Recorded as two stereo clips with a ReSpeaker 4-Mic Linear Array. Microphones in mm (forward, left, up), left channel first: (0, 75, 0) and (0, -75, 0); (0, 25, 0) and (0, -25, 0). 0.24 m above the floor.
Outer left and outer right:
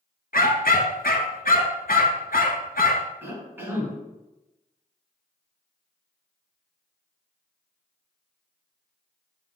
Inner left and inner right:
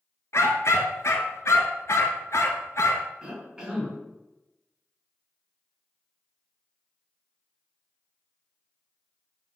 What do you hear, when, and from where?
0.3 s a dog barking: 75° left (ahead or behind), 1.1 m
3.2 s a cough: 15° right (ahead or behind), 2.5 m